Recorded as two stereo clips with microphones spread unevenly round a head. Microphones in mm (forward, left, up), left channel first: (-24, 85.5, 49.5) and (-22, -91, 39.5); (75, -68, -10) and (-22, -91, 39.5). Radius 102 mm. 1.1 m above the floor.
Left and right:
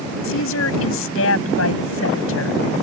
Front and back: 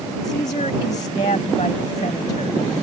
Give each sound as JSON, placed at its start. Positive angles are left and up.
{"t": 0.2, "sound": "a woman speaking", "azimuth_deg": 75}